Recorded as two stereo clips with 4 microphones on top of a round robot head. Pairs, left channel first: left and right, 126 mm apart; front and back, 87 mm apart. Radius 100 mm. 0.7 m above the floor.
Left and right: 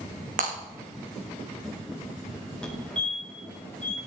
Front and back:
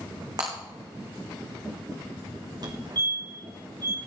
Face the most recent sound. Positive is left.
turn(degrees=170)